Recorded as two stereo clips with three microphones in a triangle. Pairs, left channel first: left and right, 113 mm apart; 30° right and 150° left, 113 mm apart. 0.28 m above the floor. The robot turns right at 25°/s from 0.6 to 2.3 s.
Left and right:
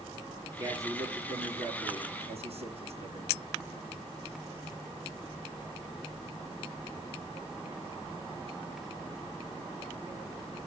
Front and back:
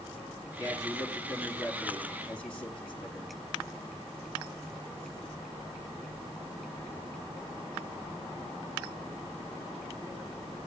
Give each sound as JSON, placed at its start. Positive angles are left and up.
{"t": 0.6, "sound": "a man speaking", "azimuth_deg": -155, "distance_m": 4.0}